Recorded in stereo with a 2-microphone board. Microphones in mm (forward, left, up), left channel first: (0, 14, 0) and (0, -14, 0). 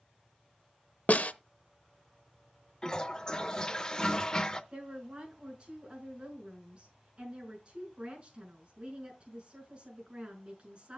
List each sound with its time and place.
1.1 s a snare drum: 65° left (ahead or behind), 0.6 m
2.8 s a toilet flushing: 25° left (ahead or behind), 0.7 m
4.7 s a woman speaking: 35° right (ahead or behind), 6 m